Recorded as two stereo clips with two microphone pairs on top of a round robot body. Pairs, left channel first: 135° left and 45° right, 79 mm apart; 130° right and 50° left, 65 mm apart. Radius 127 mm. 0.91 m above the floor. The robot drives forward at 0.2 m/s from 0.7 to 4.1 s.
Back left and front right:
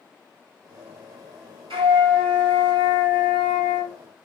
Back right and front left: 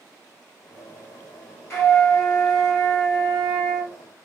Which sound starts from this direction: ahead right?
A flute, at 1.7 s.